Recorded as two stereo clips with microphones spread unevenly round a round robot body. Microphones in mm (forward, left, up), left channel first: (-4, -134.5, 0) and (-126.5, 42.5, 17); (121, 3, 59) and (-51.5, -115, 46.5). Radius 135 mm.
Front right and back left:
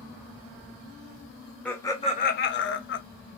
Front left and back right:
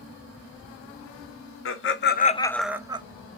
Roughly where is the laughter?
Ahead left.